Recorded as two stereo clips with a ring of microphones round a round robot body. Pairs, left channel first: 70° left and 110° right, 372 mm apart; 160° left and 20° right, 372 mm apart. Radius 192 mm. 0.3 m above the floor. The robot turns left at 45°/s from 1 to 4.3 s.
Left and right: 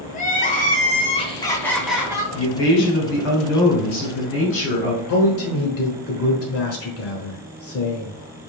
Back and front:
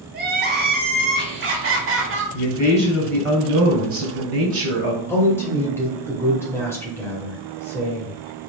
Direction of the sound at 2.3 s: 95° left.